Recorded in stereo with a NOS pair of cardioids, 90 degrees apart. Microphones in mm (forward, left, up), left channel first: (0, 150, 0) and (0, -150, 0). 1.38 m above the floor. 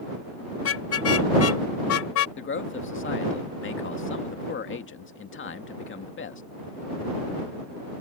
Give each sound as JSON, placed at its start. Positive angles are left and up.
{"t": 0.6, "sound": "a car horn", "azimuth_deg": 50}
{"t": 2.4, "sound": "a man speaking", "azimuth_deg": 40}